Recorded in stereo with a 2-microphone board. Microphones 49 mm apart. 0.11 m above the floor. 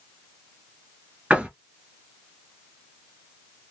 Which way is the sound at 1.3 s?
20° right (ahead or behind).